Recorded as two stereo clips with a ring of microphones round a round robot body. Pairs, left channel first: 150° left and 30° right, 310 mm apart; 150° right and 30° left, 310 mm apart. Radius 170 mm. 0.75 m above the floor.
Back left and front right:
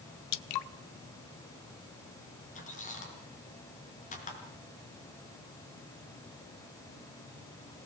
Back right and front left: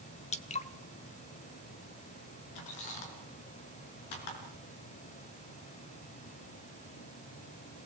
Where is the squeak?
140° right, 5.5 m.